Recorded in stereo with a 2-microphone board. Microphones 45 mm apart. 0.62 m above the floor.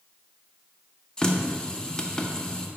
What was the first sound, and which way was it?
A running tap, 15° left (ahead or behind).